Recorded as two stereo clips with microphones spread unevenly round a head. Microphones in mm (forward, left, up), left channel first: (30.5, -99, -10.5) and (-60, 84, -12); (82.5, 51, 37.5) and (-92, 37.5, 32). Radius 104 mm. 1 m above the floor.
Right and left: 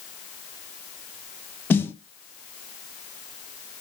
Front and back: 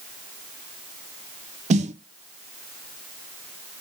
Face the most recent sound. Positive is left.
turn(degrees=-140)